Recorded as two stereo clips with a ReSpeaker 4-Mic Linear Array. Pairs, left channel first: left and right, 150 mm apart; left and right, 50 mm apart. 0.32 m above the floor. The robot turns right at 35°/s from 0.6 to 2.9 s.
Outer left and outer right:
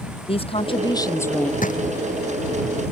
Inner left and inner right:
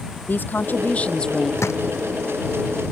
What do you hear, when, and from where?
0.3 s a woman speaking: 140° left; by 1.5 s 175° left
1.6 s a drawer: 65° left (ahead or behind); by 1.8 s 55° left (ahead or behind)